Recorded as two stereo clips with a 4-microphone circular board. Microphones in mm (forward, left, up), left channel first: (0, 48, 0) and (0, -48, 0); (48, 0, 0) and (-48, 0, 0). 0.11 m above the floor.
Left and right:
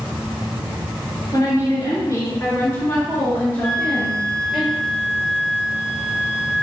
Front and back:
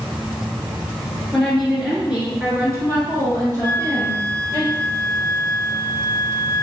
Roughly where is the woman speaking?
Left.